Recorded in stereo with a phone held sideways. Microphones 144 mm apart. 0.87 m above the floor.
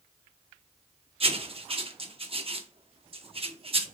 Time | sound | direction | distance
1.2 | writing | 40° right (ahead or behind) | 0.6 m